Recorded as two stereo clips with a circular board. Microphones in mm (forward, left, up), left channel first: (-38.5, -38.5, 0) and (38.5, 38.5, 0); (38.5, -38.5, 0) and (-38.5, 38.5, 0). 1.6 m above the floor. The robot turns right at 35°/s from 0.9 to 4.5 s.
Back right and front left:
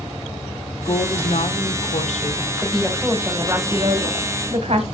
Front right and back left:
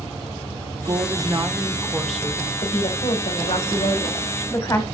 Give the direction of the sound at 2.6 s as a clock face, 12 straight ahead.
2 o'clock.